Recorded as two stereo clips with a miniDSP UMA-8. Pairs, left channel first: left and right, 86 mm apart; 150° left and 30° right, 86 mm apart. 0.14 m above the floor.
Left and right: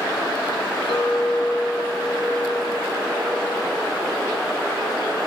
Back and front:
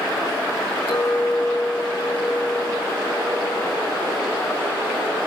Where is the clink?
110° left, 2.5 m.